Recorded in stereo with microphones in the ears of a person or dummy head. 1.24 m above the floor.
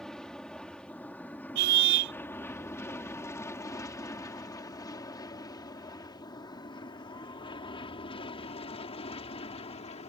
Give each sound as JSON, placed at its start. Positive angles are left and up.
{"t": 0.0, "sound": "an aircraft", "side_deg": 5}
{"t": 1.6, "sound": "a car horn", "side_deg": -60}